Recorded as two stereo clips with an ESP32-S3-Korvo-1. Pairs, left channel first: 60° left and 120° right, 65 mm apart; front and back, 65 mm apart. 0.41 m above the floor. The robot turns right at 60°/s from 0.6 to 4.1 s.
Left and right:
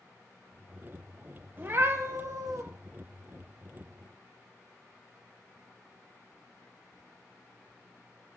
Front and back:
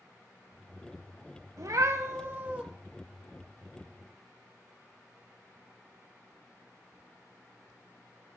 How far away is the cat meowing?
About 0.6 m.